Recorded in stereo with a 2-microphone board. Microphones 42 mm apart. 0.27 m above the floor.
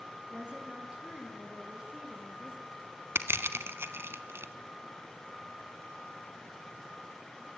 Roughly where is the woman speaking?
Right.